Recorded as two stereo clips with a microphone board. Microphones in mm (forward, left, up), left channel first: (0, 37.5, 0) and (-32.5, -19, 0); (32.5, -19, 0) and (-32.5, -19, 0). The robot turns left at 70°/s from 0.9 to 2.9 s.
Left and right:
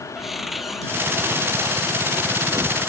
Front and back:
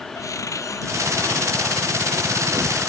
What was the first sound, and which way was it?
A cupboard door, 35° right.